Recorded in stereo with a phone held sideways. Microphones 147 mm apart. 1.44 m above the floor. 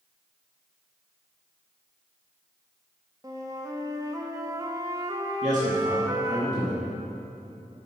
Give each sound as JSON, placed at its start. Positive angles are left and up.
{"t": 3.2, "sound": "a flute", "side_deg": -25, "distance_m": 1.1}
{"t": 5.4, "sound": "a man speaking", "side_deg": -55, "distance_m": 2.0}